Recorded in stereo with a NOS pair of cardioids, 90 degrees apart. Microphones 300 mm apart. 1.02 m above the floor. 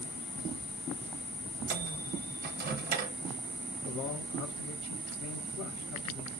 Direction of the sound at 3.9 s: 65° left.